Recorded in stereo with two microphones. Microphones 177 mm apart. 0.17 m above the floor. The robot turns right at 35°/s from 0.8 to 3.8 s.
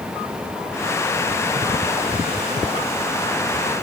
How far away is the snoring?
I don't hear snoring.